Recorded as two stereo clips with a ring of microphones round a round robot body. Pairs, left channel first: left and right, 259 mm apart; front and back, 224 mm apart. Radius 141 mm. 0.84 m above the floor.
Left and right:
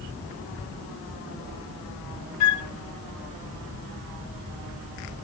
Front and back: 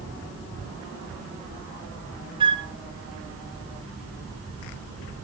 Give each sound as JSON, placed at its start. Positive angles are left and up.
{"t": 2.4, "sound": "a flute", "azimuth_deg": 110, "distance_m": 1.0}